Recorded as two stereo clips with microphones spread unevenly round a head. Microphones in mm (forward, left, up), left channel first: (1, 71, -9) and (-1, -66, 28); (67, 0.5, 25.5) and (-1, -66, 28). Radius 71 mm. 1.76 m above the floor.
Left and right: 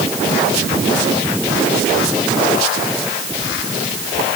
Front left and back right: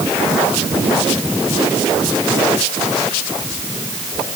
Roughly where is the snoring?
I don't hear snoring.